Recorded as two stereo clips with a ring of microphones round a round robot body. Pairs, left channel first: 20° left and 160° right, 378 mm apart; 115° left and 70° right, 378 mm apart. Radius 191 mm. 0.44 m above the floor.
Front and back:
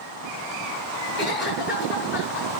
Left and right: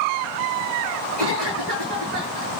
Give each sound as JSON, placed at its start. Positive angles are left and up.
{"t": 1.2, "sound": "a cough", "azimuth_deg": -40, "distance_m": 7.0}